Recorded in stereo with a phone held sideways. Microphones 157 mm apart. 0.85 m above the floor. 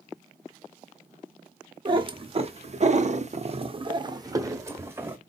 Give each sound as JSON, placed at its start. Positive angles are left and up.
{"t": 1.9, "sound": "a cat meowing", "side_deg": -30, "distance_m": 0.9}